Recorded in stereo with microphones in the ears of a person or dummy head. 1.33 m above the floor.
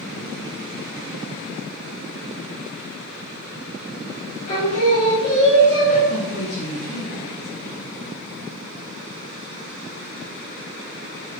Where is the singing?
40° left (ahead or behind), 1.8 m.